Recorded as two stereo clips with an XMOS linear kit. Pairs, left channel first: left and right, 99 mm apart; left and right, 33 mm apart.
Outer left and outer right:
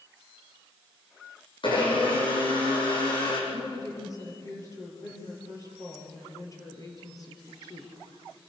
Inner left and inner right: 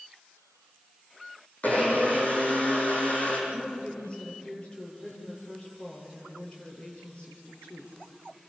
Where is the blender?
55° left (ahead or behind), 7.5 m.